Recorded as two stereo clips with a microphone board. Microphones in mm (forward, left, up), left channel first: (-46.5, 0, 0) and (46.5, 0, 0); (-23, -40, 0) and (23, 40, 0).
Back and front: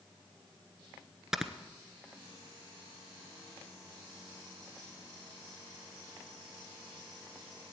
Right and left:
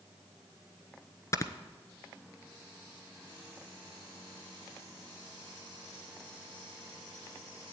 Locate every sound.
1.3 s snoring: 85° right, 1.0 m